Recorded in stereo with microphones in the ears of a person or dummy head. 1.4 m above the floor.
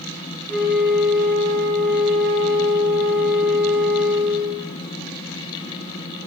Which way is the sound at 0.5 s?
5° left (ahead or behind).